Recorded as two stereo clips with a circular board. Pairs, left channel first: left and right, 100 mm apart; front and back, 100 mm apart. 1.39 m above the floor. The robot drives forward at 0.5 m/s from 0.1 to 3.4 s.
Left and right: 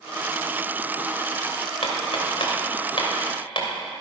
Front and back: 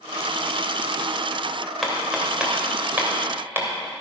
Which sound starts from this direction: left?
Hammering, at 1.8 s.